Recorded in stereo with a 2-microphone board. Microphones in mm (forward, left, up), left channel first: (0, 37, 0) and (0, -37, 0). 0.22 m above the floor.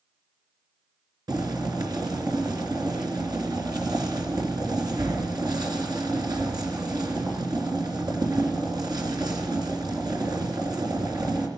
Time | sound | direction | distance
1.3 | boiling | 65° right (ahead or behind) | 3.5 m